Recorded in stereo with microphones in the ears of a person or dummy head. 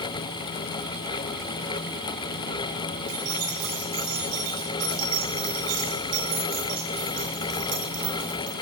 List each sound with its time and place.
3.1 s keys jangling: 65° right (ahead or behind), 8 m